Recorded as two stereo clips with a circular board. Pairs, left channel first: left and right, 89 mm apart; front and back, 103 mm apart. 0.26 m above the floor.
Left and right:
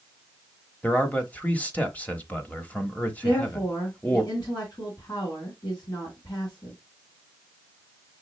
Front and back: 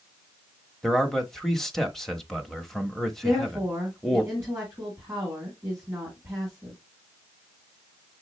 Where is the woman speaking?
125° left, 2.5 m.